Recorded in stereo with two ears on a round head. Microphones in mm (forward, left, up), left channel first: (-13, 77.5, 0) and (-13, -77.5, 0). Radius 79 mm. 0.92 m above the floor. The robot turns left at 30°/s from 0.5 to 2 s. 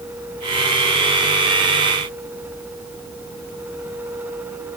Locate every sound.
Only background noise.